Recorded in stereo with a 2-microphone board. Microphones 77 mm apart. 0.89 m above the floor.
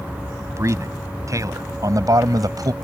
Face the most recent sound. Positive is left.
turn(degrees=-55)  # may be behind; listen again after turning